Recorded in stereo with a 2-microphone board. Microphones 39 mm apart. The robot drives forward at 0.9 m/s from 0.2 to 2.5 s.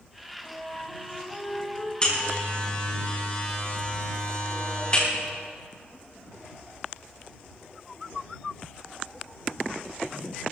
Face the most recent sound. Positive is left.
turn(degrees=30)  # may be behind; listen again after turning